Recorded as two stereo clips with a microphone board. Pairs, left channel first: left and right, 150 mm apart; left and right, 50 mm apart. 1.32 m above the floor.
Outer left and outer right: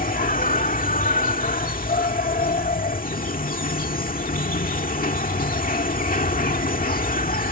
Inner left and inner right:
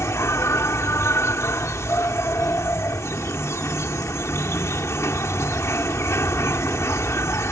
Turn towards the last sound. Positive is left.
turn(degrees=70)  # may be behind; listen again after turning